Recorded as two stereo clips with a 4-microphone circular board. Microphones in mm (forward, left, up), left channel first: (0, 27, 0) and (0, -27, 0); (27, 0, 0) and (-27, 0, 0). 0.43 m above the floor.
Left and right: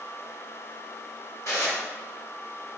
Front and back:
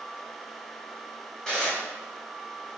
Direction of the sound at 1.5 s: 75° left.